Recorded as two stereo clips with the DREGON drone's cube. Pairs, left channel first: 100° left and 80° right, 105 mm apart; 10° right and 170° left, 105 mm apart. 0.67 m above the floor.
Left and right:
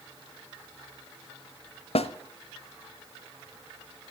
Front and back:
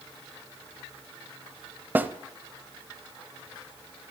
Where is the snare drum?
100° left, 0.8 m.